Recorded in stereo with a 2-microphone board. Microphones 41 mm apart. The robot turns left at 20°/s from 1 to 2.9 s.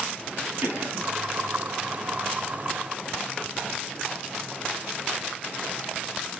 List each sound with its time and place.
0.6 s a cough: 55° right (ahead or behind), 6 m; by 1.1 s 60° right (ahead or behind), 6 m